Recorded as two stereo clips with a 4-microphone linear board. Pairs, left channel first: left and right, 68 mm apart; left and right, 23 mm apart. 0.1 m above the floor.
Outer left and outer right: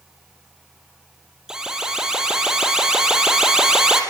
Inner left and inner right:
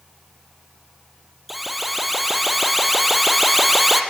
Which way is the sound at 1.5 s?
10° right (ahead or behind).